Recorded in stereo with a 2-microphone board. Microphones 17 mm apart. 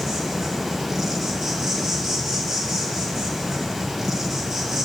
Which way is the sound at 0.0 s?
30° right (ahead or behind).